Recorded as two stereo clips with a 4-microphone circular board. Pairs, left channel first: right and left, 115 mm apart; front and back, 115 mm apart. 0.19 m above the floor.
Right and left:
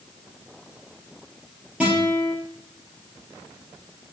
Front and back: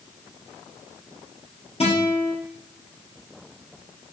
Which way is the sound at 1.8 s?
10° left.